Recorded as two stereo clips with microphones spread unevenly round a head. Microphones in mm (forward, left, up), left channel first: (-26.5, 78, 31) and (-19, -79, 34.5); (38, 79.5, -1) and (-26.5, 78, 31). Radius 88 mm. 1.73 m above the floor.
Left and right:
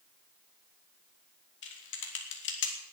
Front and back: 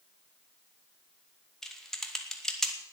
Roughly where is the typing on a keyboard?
Left.